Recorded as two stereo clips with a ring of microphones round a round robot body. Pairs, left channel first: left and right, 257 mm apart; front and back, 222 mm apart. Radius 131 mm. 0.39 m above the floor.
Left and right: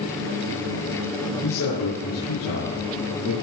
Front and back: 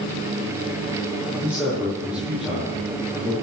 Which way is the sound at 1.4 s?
95° left.